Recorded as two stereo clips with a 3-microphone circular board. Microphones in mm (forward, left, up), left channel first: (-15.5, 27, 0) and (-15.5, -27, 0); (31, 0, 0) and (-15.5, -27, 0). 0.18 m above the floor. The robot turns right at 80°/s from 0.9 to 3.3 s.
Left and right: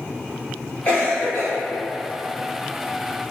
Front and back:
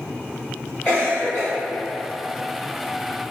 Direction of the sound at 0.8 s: 45° left.